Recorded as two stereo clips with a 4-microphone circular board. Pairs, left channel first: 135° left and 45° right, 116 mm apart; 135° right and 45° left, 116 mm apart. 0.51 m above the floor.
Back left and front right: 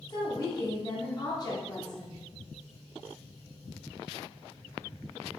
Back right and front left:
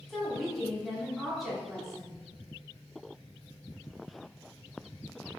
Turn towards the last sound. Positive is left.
turn(degrees=135)